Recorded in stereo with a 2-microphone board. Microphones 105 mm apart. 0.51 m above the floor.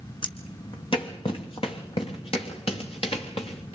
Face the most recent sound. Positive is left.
turn(degrees=65)  # may be behind; listen again after turning